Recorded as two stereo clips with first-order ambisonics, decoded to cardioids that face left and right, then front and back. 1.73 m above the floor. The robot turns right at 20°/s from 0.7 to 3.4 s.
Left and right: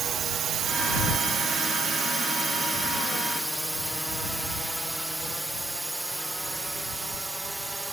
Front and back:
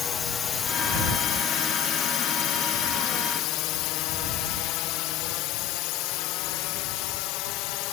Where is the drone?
50° right; by 7.9 s 10° right.